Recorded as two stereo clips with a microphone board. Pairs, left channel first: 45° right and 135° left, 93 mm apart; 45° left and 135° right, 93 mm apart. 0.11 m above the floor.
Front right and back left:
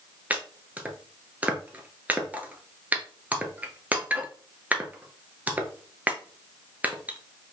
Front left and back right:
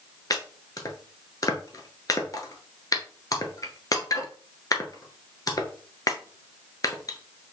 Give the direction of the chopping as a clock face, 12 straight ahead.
10 o'clock.